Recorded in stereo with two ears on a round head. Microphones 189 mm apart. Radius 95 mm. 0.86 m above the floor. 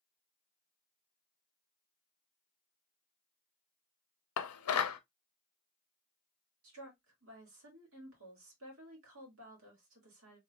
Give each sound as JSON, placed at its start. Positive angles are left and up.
{"t": 4.4, "sound": "dishes clattering", "side_deg": 80, "distance_m": 0.6}
{"t": 6.6, "sound": "a woman speaking", "side_deg": -70, "distance_m": 2.0}